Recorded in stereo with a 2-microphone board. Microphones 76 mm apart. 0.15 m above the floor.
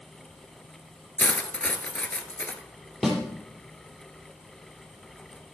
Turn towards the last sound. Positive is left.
turn(degrees=0)  # may be behind; listen again after turning